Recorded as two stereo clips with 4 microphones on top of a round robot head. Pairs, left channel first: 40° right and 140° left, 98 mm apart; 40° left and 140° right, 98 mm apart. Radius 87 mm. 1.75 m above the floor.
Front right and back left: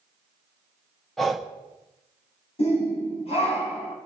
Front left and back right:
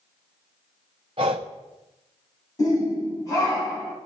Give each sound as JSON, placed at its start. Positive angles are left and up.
{"t": 1.2, "sound": "breathing", "azimuth_deg": -130, "distance_m": 0.7}
{"t": 2.6, "sound": "a shout", "azimuth_deg": -15, "distance_m": 2.5}